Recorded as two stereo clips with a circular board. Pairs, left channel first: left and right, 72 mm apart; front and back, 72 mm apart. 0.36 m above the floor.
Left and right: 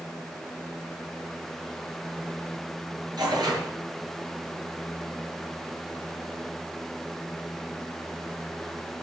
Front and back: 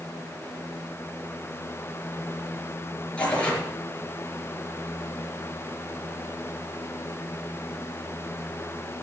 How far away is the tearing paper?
About 6 m.